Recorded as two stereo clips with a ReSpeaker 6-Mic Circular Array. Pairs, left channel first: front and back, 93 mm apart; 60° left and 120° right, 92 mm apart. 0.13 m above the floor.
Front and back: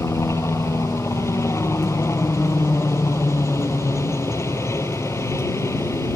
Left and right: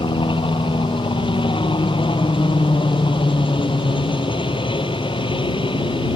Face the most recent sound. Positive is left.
turn(degrees=60)